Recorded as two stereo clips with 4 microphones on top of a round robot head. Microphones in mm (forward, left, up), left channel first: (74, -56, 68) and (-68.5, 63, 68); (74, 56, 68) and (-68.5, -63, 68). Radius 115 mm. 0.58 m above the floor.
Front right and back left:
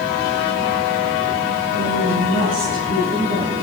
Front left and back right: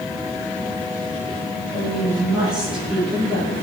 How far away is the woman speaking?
About 9 m.